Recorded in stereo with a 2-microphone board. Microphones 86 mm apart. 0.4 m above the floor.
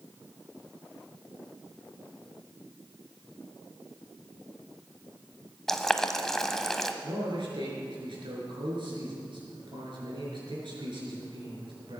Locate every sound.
5.7 s boiling: 5° left (ahead or behind), 0.9 m
7.0 s a man speaking: 65° right (ahead or behind), 5.5 m